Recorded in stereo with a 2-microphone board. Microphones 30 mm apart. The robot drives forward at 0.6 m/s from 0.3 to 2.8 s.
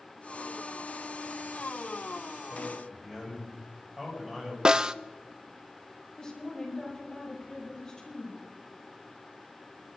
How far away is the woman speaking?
About 7.5 m.